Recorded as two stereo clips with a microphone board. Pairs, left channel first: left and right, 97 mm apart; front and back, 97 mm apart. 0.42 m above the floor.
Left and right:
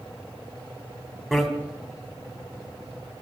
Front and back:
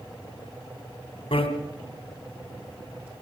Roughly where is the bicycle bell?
Ahead.